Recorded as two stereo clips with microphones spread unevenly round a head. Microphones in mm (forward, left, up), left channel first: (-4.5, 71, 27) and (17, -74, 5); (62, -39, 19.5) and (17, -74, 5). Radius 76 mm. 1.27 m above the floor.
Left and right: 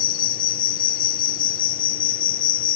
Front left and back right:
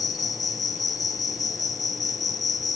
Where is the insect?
75° left.